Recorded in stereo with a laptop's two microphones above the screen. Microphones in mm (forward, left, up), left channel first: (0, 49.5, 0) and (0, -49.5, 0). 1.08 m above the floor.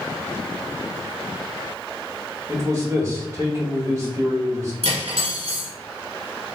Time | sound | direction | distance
2.5 | a man speaking | 30° right (ahead or behind) | 1.8 m
4.8 | cutlery clinking | 75° right (ahead or behind) | 1.7 m